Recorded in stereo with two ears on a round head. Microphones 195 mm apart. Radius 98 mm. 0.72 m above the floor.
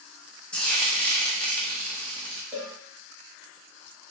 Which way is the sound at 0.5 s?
5° left (ahead or behind).